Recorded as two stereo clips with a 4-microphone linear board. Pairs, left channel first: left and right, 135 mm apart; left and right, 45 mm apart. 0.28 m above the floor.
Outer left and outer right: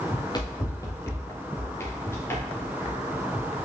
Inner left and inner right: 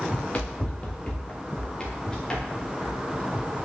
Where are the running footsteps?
35° left (ahead or behind), 1.1 m; by 3.5 s 15° left (ahead or behind), 3 m.